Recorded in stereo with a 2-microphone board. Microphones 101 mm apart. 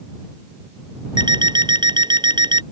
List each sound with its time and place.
1.2 s an alarm clock: 50° right (ahead or behind)